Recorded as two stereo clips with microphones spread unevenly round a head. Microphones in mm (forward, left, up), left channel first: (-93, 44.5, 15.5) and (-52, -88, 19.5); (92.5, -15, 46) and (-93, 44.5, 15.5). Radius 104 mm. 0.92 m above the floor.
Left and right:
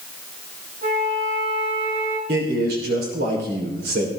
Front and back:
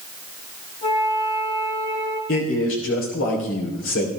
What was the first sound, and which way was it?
A flute, 90° right.